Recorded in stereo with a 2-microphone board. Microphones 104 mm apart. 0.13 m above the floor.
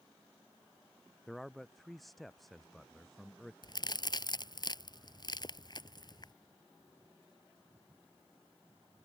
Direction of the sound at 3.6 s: 45° left (ahead or behind).